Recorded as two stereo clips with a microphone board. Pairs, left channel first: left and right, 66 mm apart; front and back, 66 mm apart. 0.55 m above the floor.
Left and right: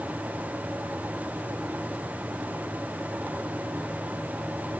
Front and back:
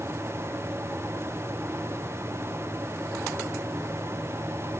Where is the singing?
No singing in this recording.